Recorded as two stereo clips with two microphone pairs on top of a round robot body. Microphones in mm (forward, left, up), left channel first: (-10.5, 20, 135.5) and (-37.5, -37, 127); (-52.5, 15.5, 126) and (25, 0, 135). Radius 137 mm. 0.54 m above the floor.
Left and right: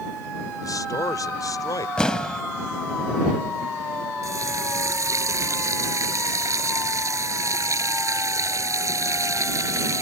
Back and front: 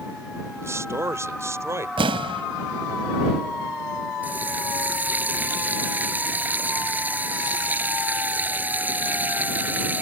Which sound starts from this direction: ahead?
An explosion, at 2.0 s.